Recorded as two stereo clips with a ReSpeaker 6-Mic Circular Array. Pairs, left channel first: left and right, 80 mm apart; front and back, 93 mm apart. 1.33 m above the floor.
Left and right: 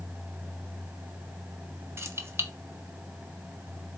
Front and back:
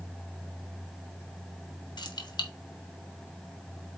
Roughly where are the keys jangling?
Ahead right.